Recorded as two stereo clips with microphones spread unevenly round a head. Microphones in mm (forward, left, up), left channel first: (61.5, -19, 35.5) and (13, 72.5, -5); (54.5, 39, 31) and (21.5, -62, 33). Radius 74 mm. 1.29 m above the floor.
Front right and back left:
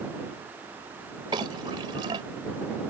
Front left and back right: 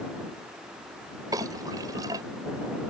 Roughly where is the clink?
Behind.